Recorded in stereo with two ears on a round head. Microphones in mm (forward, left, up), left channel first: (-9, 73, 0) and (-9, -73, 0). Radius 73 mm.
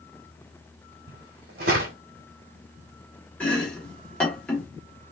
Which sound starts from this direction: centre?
Chopping, at 3.4 s.